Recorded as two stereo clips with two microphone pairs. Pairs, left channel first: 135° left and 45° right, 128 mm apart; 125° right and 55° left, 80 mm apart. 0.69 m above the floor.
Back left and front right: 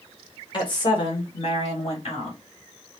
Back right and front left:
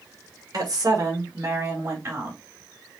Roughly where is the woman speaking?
Left.